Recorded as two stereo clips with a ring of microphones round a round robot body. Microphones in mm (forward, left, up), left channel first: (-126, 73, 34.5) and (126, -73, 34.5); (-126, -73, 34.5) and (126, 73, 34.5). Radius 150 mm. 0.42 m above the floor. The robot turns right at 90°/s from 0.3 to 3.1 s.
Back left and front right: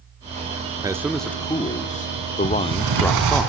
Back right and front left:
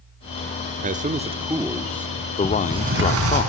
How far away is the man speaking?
About 0.8 m.